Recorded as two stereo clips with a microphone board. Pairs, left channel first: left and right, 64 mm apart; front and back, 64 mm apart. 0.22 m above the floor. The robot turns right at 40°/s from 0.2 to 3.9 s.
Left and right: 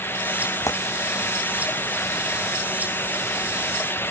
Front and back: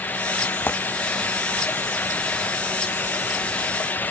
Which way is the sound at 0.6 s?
55° left.